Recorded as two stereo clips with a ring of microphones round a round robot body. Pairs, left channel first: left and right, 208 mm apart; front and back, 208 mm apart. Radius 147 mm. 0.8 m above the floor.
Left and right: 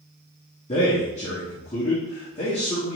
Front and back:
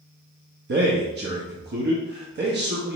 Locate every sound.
0.7 s a man speaking: 150° left, 0.9 m